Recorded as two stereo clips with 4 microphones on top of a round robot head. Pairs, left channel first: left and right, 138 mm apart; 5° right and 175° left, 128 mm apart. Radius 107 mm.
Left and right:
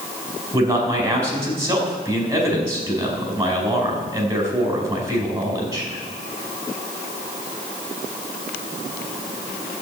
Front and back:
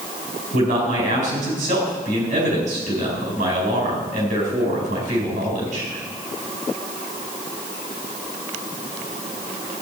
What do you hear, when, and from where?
0.5 s a man speaking: 160° right, 4.5 m